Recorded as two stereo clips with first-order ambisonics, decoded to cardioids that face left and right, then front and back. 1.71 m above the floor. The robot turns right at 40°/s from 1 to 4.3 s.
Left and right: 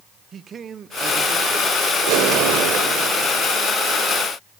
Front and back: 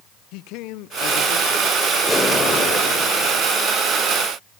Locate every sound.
0.3 s a man speaking: 25° right, 0.9 m; by 1.7 s 5° left, 0.9 m
2.1 s an explosion: 90° right, 3 m; by 3.5 s 30° right, 3 m